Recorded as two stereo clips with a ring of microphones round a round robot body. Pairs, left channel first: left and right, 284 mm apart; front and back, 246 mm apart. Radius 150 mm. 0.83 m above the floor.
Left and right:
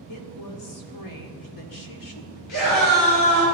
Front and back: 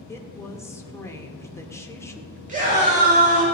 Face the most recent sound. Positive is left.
turn(degrees=120)